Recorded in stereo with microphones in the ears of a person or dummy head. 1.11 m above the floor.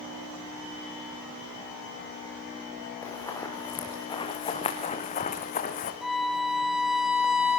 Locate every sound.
3.0 s running footsteps: 10° left (ahead or behind), 5 m; by 5.9 s 45° left (ahead or behind), 3.5 m
6.0 s a violin: centre (ahead or behind), 3 m